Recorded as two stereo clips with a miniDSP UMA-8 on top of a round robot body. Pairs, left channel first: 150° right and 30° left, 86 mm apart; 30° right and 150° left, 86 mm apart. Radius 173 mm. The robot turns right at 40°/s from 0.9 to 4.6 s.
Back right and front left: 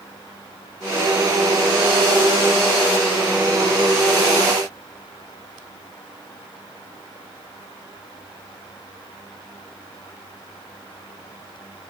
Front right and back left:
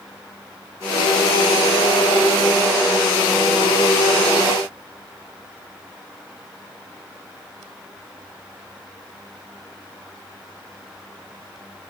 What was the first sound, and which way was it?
Only background noise.